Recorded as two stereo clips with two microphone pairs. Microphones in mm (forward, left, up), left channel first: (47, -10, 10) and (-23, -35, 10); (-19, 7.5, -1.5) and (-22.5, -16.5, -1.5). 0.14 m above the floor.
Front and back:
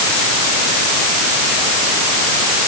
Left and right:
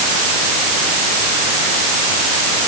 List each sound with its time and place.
Only background noise.